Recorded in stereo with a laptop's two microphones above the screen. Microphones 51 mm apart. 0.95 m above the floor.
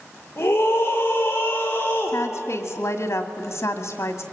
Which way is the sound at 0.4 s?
45° left (ahead or behind).